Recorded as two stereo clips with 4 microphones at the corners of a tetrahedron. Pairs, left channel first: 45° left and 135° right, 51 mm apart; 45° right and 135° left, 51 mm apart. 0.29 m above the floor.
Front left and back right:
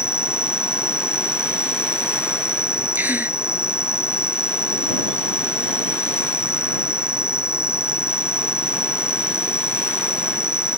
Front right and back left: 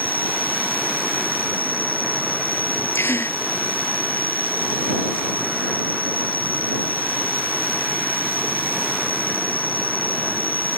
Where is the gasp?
80° right.